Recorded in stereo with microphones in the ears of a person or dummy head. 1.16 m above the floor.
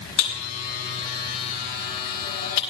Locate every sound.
0.2 s a buzzer: 65° left (ahead or behind), 5.5 m